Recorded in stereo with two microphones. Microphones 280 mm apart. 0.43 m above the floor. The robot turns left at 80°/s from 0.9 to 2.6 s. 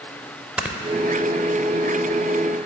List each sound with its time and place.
0.6 s snoring: 5° right (ahead or behind), 0.5 m